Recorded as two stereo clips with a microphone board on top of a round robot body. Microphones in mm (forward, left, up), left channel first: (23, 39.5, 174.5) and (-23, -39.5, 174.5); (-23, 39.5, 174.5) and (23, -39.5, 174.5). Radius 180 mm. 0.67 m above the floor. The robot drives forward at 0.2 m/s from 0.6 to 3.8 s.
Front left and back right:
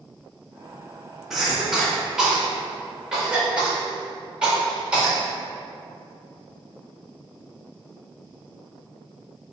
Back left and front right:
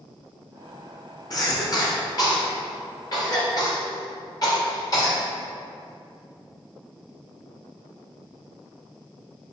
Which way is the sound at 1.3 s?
155° left.